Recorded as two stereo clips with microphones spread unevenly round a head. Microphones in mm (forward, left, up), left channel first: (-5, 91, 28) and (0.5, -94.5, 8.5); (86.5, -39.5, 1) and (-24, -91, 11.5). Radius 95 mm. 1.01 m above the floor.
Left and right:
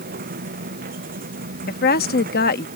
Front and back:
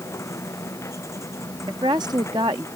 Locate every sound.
0.0 s a machine running: 45° right
1.7 s a woman speaking: 135° left